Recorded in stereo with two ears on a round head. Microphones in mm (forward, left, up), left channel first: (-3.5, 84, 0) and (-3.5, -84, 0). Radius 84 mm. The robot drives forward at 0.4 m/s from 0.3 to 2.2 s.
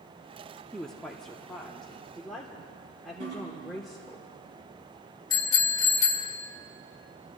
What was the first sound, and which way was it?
A woman speaking, 5° left (ahead or behind).